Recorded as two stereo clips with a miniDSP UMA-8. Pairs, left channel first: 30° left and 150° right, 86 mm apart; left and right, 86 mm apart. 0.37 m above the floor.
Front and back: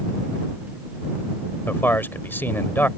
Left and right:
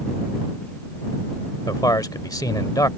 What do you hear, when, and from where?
1.7 s a man speaking: 85° left